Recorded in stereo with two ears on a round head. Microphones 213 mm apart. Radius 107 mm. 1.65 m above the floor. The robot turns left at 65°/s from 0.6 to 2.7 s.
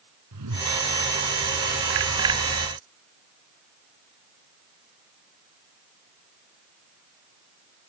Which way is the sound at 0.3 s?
85° right.